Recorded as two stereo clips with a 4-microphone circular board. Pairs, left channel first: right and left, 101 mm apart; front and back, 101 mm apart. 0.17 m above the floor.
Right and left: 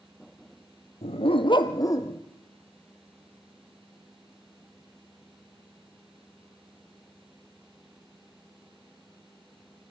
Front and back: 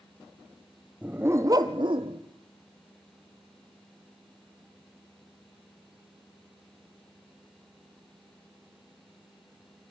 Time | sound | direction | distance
1.0 | a dog barking | 100° right | 1.6 m